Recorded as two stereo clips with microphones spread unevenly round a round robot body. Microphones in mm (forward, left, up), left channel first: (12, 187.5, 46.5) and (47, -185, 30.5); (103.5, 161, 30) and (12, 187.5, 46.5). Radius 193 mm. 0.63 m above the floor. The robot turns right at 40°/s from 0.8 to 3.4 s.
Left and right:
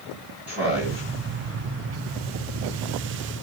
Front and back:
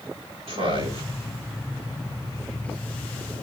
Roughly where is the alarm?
I don't hear an alarm.